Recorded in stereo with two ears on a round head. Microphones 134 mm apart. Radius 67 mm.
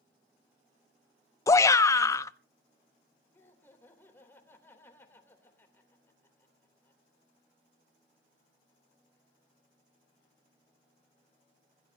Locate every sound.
1.5 s a shout: 20° left (ahead or behind), 0.6 m
3.3 s laughter: 15° left (ahead or behind), 3 m